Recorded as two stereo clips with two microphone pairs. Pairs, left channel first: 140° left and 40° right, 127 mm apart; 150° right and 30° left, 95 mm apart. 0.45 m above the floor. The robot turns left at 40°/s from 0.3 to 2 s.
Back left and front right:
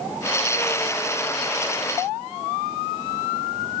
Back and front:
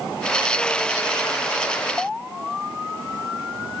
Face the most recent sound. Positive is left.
No sound to turn to.